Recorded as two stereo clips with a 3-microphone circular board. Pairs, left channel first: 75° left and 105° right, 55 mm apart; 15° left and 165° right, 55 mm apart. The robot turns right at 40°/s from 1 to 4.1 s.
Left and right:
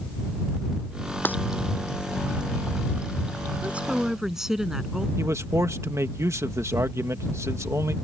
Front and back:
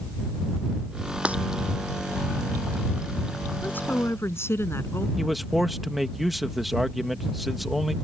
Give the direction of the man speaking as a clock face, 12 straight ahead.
3 o'clock.